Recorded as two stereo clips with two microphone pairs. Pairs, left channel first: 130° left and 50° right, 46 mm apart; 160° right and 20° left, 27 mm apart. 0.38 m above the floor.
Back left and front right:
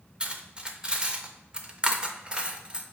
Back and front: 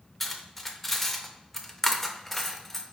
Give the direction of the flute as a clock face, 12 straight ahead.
No flute in this recording.